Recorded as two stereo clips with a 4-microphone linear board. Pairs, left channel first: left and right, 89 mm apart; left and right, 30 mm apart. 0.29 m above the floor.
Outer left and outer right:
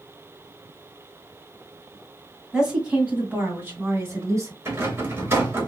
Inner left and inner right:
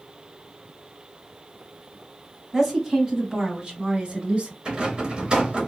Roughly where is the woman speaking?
Centre.